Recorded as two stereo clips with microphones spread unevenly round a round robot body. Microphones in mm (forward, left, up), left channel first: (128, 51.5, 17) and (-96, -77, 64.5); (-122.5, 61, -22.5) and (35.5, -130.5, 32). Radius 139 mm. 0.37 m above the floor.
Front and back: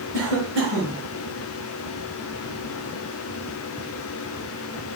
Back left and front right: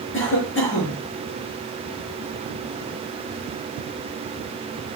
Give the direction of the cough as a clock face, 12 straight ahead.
6 o'clock.